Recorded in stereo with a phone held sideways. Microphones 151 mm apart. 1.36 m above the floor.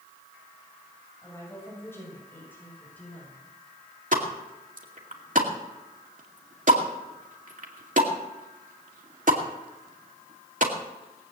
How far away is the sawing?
I don't hear sawing.